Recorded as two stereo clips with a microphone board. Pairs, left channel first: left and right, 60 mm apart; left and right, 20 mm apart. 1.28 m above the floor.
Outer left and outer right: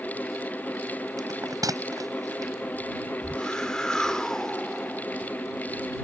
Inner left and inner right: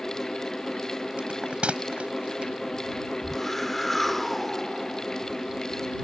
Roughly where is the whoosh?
Centre.